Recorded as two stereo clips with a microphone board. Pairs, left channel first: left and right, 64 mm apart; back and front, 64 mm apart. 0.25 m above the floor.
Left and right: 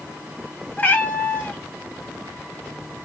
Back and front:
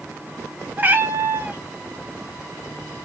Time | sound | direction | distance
0.8 | a cat meowing | 40° left | 0.8 m